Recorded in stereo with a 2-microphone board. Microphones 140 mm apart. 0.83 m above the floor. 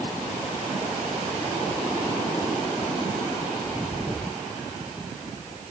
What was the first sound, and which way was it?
Only background noise.